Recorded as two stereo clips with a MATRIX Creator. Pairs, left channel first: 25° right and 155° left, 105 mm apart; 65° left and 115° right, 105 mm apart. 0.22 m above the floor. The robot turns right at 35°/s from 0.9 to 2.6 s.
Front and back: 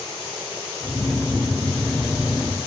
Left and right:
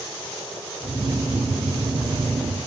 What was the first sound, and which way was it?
Only background noise.